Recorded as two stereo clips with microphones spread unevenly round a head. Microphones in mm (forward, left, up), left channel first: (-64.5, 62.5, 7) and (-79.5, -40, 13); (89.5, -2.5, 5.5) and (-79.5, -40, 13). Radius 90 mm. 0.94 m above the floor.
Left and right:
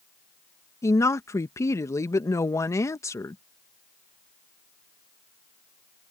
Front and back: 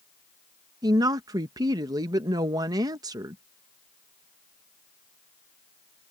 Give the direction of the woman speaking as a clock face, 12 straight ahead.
8 o'clock.